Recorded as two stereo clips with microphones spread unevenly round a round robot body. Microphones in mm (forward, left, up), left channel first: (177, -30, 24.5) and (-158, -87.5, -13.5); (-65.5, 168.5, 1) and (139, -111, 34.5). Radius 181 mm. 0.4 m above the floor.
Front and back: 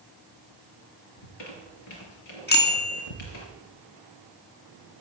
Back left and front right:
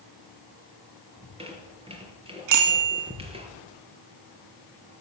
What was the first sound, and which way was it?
A squeak, 20° left.